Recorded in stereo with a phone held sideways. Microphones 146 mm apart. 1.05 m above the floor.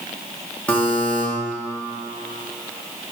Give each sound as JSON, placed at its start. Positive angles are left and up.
{"t": 0.7, "sound": "a buzzer", "side_deg": 10, "distance_m": 0.9}